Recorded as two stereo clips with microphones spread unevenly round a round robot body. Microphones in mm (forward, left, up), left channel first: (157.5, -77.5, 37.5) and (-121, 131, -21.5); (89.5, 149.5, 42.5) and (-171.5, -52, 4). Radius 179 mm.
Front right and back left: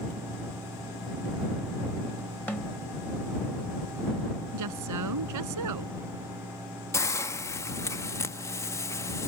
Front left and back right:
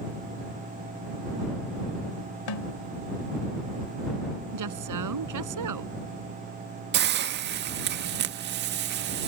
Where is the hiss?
130° right.